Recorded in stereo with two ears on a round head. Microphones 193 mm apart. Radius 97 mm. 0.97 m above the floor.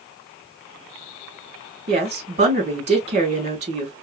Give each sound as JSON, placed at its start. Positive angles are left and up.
{"t": 1.9, "sound": "a woman speaking", "side_deg": -30, "distance_m": 3.0}